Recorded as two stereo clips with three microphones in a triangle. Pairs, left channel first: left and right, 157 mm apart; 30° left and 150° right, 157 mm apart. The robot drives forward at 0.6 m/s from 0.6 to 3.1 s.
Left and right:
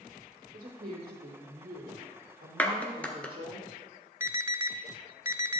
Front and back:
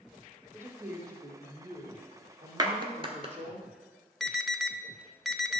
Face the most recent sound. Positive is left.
turn(degrees=-55)